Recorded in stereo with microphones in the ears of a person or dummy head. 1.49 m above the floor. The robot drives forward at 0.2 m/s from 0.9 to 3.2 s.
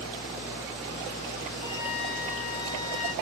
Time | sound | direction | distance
1.6 | a flute | 50° left (ahead or behind) | 2.5 m